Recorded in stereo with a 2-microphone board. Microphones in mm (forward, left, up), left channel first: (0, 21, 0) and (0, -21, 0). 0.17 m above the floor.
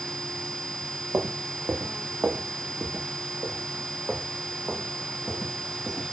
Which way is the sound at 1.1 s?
70° right (ahead or behind).